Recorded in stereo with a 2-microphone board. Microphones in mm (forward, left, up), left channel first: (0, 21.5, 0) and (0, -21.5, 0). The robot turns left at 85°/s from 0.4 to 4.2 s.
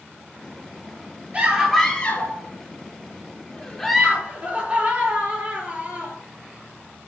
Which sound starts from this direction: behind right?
A scream, at 1.3 s.